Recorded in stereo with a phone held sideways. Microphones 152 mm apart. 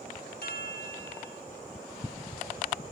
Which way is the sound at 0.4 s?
80° left.